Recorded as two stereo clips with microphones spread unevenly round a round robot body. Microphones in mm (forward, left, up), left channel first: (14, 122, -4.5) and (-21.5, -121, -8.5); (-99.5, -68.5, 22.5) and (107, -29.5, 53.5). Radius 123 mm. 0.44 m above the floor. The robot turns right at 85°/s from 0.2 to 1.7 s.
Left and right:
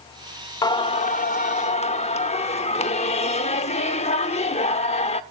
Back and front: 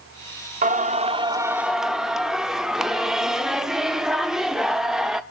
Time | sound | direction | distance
0.6 | singing | 20° left | 1.0 m